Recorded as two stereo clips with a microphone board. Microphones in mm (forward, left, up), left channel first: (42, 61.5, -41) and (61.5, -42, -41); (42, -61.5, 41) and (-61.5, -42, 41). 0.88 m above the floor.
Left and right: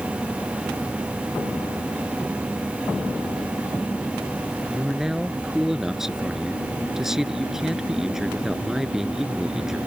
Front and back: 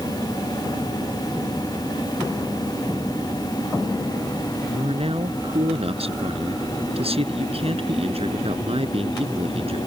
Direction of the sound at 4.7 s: 165° right.